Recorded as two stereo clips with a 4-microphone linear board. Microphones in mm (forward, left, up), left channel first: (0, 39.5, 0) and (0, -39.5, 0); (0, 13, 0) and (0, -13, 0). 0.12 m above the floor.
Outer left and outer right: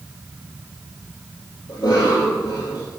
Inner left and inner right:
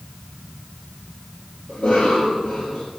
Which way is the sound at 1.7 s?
65° left (ahead or behind).